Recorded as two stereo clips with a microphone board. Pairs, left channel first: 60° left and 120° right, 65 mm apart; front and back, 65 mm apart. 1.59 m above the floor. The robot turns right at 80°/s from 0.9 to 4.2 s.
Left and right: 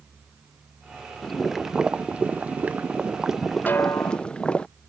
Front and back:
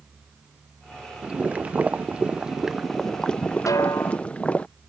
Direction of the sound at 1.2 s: 140° left.